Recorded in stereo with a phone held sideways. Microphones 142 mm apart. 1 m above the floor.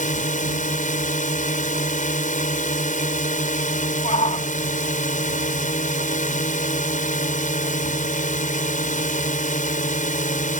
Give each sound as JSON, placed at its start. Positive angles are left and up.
{"t": 0.0, "sound": "a drone", "side_deg": 70}
{"t": 4.0, "sound": "a shout", "side_deg": 60}